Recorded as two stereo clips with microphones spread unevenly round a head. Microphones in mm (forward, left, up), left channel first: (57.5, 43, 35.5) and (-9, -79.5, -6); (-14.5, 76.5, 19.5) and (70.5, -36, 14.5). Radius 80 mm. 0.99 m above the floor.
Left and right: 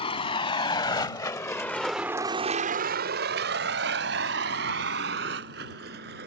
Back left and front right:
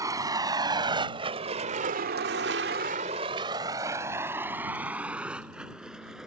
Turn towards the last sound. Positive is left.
turn(degrees=-140)